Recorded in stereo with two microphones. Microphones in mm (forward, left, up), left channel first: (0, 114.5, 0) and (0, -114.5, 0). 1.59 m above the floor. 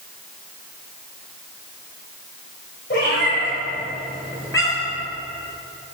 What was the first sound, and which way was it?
A cat meowing, 45° left (ahead or behind).